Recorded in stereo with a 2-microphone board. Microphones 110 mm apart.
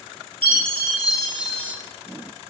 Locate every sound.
0.4 s a chime: 50° right (ahead or behind), 3.5 m